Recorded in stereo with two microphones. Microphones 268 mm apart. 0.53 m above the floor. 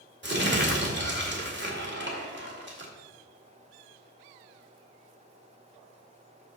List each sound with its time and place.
0.2 s crumpling: 40° right (ahead or behind), 1.9 m